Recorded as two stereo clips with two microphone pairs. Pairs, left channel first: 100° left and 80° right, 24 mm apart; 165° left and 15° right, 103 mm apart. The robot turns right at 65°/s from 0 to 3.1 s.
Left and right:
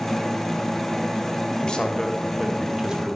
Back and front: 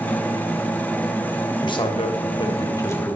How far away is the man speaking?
About 1.4 m.